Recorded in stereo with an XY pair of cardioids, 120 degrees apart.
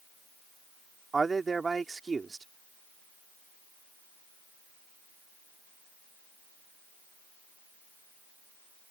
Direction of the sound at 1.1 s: 25° right.